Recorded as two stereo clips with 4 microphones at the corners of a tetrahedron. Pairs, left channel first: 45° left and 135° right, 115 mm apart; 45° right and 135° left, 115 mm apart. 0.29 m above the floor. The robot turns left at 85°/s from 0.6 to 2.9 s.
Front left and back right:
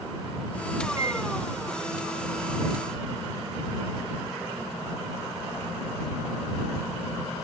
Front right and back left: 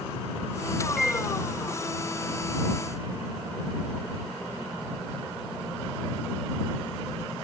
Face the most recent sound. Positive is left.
turn(degrees=60)